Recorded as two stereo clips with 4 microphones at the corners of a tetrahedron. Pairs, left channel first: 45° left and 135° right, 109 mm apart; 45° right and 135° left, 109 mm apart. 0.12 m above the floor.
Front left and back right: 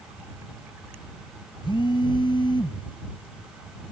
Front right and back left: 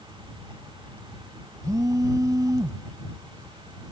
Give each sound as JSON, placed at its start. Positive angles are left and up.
{"t": 1.6, "sound": "a phone buzzing", "azimuth_deg": 80}